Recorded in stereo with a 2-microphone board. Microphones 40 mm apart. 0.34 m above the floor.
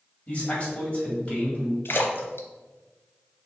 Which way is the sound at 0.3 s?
30° left (ahead or behind).